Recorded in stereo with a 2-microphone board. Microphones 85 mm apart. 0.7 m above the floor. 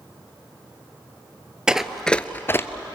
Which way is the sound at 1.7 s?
10° right (ahead or behind).